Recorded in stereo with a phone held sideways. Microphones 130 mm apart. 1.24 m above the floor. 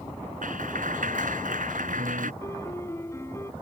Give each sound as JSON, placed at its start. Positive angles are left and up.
{"t": 0.4, "sound": "a clap", "side_deg": -90}
{"t": 2.4, "sound": "a piano", "side_deg": 20}